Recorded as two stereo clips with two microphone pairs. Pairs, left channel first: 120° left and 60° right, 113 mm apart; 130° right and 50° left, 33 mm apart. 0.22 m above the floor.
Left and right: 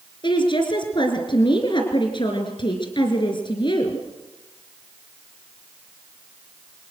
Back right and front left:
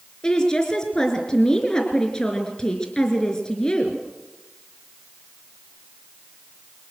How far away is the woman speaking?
About 3.5 m.